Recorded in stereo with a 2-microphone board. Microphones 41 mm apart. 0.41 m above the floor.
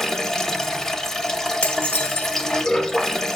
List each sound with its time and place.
0.0 s running water: 15° left (ahead or behind), 0.8 m
1.6 s dishes clattering: 40° left (ahead or behind), 0.6 m